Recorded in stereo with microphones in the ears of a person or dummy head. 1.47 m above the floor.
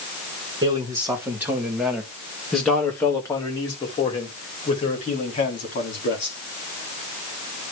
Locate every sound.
0.6 s a man speaking: 20° right (ahead or behind), 2.5 m; by 6.3 s 50° left (ahead or behind), 3.5 m